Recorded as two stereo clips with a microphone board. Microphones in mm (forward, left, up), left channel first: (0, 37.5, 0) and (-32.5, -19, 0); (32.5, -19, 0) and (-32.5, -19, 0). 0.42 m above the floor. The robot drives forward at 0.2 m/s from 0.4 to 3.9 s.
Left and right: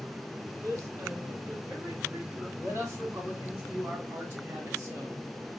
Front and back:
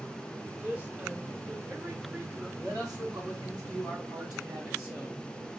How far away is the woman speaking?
About 2.5 m.